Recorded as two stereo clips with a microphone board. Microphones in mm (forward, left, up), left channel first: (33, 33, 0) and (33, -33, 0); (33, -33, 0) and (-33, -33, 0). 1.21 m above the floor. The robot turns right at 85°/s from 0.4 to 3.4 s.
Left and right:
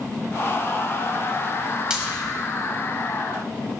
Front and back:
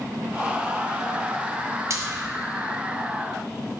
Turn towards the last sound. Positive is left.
turn(degrees=-30)